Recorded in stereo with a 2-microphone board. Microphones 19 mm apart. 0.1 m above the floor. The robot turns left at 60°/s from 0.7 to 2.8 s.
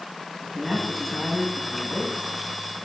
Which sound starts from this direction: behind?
A man speaking, at 0.4 s.